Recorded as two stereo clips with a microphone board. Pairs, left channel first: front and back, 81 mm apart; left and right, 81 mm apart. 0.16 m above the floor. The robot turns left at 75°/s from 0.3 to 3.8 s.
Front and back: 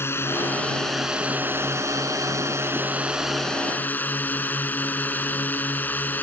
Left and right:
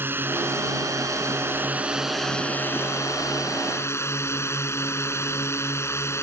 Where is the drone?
40° right; by 6.2 s 55° left.